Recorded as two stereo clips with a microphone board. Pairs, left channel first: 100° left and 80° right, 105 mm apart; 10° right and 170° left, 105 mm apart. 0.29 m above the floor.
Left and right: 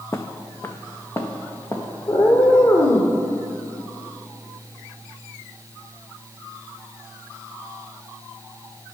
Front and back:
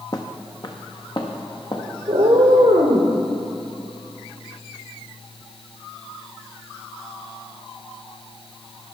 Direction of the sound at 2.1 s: 135° left.